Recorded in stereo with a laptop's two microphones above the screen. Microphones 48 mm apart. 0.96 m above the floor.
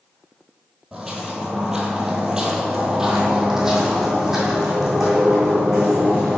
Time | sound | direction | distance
0.9 | footsteps | 10° right (ahead or behind) | 1.1 m